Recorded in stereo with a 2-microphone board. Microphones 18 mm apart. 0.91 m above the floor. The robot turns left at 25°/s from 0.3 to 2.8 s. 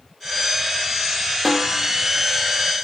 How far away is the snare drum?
About 0.6 m.